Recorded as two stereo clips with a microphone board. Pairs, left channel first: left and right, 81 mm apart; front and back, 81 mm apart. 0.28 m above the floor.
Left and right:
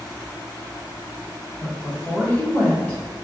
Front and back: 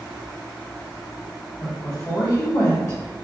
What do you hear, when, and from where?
1.6 s a woman speaking: 25° left, 1.5 m